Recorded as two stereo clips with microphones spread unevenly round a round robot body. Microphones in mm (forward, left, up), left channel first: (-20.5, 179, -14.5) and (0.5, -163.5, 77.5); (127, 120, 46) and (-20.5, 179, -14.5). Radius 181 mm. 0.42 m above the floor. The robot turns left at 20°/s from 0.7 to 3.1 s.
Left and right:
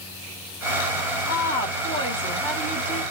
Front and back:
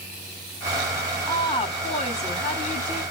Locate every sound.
1.3 s a woman speaking: 50° left, 1.6 m; by 3.0 s 15° left, 1.6 m